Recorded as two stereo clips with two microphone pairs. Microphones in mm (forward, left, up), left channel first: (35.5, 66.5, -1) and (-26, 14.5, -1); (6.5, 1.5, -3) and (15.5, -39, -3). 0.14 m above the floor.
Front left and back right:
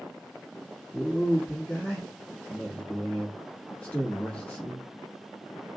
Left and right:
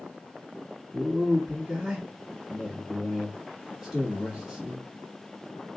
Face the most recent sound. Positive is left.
turn(degrees=-15)